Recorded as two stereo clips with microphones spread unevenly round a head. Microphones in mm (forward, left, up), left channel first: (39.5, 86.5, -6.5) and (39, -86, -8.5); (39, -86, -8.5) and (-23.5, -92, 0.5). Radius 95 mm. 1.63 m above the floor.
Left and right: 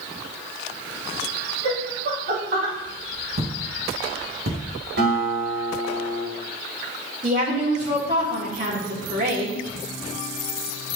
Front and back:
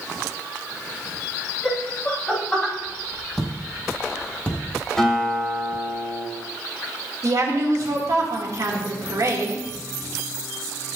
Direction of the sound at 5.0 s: 75° right.